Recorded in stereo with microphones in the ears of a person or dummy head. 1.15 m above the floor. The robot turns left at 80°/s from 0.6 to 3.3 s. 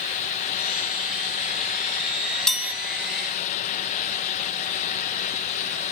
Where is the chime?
5° left (ahead or behind), 0.9 m; by 2.7 s 15° right (ahead or behind), 0.9 m.